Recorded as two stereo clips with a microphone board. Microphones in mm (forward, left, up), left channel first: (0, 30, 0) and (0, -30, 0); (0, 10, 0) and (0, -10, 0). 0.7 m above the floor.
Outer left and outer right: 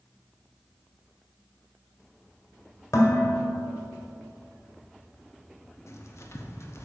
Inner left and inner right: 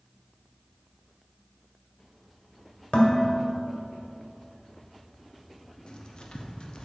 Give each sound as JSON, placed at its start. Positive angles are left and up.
{"t": 2.9, "sound": "dishes clattering", "side_deg": 65, "distance_m": 1.7}
{"t": 5.9, "sound": "writing", "side_deg": 50, "distance_m": 0.9}